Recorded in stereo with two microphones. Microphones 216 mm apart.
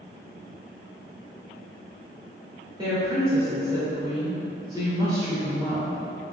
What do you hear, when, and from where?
2.8 s a woman speaking: 20° right (ahead or behind), 1.3 m